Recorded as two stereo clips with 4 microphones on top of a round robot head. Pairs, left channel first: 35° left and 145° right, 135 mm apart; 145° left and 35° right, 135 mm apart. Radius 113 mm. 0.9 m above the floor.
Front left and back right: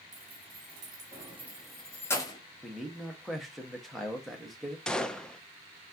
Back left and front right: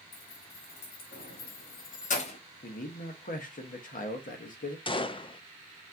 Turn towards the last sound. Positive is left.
turn(degrees=120)